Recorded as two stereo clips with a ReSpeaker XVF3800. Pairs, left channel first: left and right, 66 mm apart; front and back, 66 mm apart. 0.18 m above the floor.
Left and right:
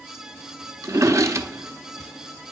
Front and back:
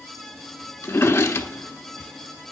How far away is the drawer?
About 0.6 m.